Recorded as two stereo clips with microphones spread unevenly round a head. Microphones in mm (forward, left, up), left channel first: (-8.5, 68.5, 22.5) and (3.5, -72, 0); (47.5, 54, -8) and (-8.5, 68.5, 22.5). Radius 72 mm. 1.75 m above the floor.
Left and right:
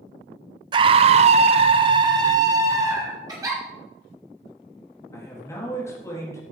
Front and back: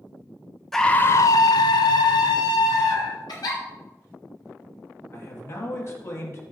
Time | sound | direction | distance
0.7 | a scream | 135° right | 0.6 m
3.3 | a giggle | 20° right | 3 m
5.1 | a man speaking | 25° left | 3.5 m